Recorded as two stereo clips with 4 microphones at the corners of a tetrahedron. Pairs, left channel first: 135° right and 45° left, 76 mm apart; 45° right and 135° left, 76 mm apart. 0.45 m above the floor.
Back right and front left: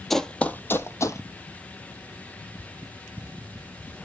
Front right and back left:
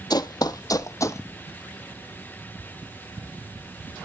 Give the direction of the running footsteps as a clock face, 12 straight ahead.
2 o'clock.